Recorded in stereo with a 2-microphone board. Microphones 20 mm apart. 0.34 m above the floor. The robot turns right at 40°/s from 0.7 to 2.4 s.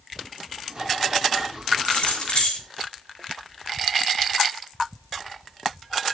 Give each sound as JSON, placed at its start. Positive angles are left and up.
{"t": 1.9, "sound": "keys jangling", "side_deg": 60, "distance_m": 4.0}